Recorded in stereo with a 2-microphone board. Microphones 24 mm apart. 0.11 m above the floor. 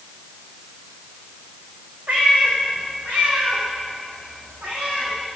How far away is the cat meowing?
About 5 m.